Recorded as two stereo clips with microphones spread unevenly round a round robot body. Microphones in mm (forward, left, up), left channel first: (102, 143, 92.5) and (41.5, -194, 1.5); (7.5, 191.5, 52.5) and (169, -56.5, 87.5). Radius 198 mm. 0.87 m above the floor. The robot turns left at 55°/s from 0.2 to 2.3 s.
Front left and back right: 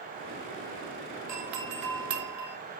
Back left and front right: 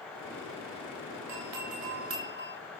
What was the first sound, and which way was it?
A doorbell, 65° right.